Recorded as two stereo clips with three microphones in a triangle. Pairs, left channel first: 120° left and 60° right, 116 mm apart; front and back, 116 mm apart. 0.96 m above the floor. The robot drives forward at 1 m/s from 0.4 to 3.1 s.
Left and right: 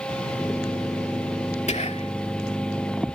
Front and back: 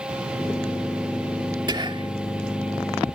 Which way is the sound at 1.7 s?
130° left.